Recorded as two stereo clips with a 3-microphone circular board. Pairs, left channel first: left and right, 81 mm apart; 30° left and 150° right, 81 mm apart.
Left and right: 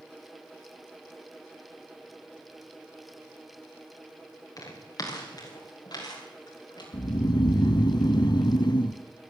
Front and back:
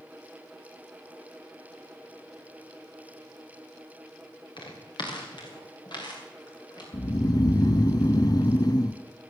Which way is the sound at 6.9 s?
65° left.